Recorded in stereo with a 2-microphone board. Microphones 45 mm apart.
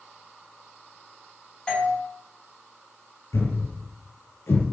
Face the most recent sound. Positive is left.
turn(degrees=75)  # may be behind; listen again after turning